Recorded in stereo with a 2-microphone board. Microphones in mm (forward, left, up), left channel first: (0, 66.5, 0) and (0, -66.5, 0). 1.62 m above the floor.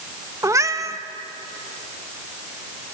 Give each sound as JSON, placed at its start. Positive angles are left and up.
{"t": 0.4, "sound": "a cat meowing", "side_deg": -25, "distance_m": 0.9}